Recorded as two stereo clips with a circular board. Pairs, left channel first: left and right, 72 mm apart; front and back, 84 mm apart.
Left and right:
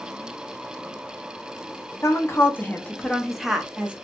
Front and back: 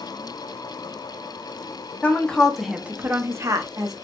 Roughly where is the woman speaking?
Ahead left.